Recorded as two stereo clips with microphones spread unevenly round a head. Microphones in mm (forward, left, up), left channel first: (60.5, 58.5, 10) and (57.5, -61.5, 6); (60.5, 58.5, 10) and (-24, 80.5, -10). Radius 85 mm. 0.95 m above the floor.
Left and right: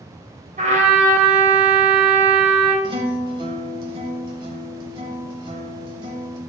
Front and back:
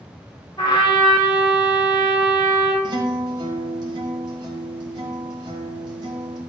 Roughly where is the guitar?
Behind right.